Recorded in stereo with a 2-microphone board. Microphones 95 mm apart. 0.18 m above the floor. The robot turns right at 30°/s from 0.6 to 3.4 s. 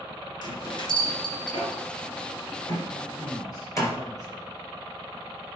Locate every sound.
0.4 s a bell: 45° left (ahead or behind), 2.5 m; by 3.9 s 35° left (ahead or behind), 2.5 m
2.9 s a man speaking: 40° left (ahead or behind), 1.7 m